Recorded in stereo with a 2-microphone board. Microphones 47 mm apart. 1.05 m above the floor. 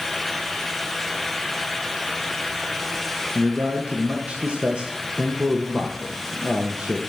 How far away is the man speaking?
About 0.8 m.